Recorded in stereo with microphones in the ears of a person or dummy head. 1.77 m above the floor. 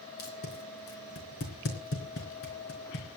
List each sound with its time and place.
0.2 s tape being pulled: 50° left (ahead or behind), 4 m